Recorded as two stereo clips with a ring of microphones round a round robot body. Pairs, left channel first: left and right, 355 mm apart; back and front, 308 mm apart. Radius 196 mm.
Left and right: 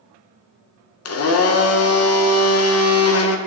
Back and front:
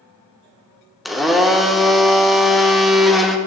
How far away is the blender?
About 0.6 m.